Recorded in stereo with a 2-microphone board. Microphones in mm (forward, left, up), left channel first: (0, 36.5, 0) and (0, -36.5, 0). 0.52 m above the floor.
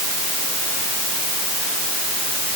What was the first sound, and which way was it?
Only background noise.